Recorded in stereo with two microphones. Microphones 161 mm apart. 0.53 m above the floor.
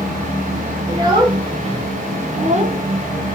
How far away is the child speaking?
About 1.5 m.